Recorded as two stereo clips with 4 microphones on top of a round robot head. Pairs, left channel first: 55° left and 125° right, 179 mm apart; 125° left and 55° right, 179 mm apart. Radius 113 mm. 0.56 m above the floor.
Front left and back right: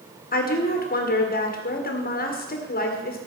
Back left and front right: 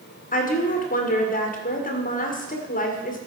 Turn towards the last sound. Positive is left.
turn(degrees=85)